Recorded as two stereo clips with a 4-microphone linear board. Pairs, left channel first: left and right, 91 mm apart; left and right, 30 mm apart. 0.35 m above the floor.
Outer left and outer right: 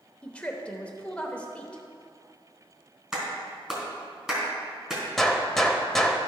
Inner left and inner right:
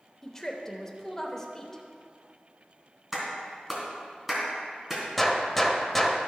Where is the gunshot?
5° left (ahead or behind), 0.8 m.